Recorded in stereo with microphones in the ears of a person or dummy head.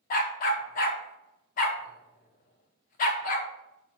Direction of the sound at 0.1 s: 50° left (ahead or behind).